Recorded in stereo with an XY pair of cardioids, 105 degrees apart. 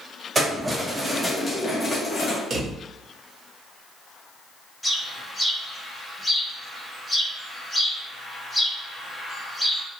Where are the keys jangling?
20° right, 1.3 m; by 2.4 s 65° left, 1.0 m.